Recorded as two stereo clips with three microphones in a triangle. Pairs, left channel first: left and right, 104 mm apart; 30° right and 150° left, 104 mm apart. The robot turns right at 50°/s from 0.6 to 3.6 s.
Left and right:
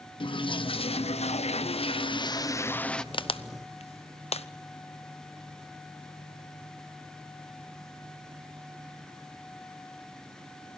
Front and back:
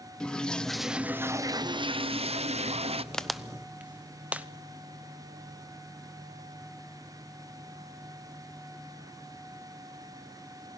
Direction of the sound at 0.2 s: 50° left.